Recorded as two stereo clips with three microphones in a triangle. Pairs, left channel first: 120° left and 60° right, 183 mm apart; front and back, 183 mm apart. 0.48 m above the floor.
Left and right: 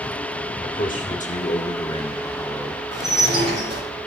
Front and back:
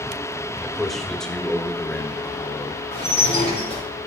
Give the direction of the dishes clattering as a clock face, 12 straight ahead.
2 o'clock.